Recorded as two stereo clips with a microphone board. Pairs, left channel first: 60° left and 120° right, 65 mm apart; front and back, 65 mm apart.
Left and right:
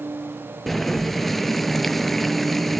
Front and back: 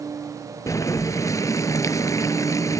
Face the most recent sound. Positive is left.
turn(degrees=-25)